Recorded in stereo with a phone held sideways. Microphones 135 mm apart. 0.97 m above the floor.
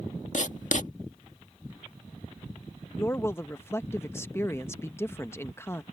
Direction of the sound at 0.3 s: 65° left (ahead or behind).